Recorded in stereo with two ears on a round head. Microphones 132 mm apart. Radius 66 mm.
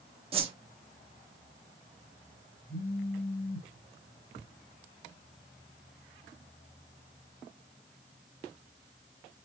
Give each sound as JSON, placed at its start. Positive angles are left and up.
{"t": 0.3, "sound": "a whoosh", "side_deg": -40, "distance_m": 0.7}
{"t": 2.7, "sound": "a phone buzzing", "side_deg": 65, "distance_m": 1.9}